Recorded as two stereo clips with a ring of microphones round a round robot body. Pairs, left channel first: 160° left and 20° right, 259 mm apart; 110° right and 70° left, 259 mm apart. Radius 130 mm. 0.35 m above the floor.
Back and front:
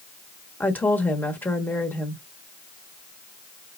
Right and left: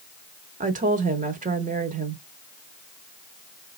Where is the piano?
No piano in this recording.